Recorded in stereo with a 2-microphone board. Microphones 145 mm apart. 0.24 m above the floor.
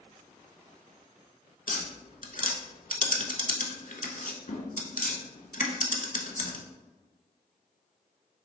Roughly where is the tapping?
Left.